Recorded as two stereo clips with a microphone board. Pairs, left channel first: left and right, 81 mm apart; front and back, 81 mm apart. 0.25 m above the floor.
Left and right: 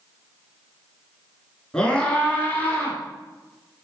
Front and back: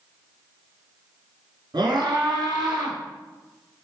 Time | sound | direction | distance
1.7 | a scream | 170° left | 3.5 m